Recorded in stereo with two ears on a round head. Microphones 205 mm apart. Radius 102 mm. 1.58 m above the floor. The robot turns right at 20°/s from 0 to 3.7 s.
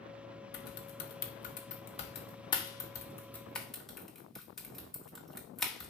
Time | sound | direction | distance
0.5 | typing on a keyboard | 50° left (ahead or behind) | 1.5 m